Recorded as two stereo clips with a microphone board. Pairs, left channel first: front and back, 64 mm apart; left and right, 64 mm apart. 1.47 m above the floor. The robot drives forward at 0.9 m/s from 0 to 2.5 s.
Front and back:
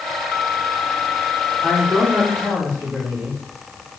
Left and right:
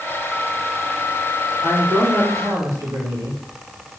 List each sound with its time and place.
1.6 s a man speaking: 105° right, 4.5 m; by 3.4 s 115° right, 5 m